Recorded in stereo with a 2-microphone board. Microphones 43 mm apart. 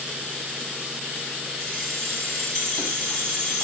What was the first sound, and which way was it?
Keys jangling, 15° left (ahead or behind).